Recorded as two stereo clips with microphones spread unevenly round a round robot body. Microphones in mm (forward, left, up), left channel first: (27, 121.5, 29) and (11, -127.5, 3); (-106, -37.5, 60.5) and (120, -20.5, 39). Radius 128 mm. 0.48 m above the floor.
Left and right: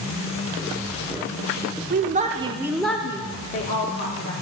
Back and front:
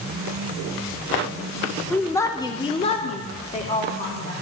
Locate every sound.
1.9 s a woman speaking: 90° right, 0.8 m; by 4.3 s 125° left, 1.1 m